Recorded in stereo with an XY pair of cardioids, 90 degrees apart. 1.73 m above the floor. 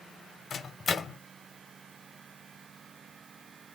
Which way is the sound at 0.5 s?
55° left.